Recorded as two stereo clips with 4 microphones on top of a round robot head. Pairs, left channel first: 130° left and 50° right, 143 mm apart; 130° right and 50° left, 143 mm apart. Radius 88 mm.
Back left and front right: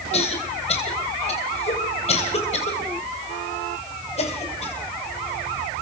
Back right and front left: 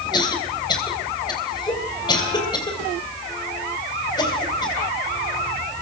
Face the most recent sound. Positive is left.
turn(degrees=170)